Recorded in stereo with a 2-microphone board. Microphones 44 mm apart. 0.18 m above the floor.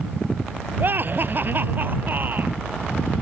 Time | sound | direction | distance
0.8 | laughter | 50° right (ahead or behind) | ?